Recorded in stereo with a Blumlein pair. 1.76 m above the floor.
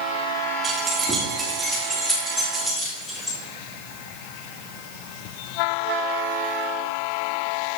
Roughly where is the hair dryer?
No hair dryer in this recording.